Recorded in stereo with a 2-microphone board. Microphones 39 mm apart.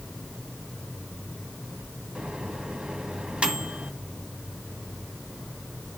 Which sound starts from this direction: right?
A microwave, at 2.1 s.